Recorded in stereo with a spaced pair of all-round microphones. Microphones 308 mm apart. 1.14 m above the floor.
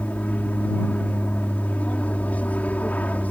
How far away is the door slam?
No door slam in this recording.